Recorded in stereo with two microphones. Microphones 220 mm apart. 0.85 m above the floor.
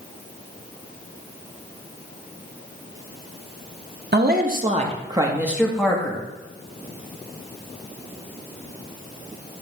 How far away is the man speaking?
About 1.1 m.